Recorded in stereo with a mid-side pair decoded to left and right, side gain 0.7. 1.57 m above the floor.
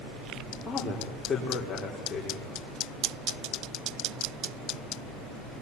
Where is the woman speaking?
20° left, 4.5 m.